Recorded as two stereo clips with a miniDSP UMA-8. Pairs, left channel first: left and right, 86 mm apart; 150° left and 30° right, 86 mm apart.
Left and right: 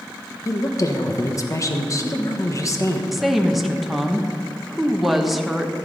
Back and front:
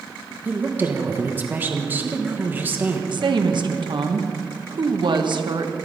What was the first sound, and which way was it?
A woman speaking, 35° left.